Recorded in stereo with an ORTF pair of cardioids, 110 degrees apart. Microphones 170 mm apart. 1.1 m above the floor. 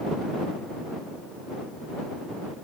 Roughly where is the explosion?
I don't hear an explosion.